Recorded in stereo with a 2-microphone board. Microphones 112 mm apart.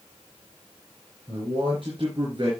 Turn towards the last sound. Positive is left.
turn(degrees=-45)  # may be behind; listen again after turning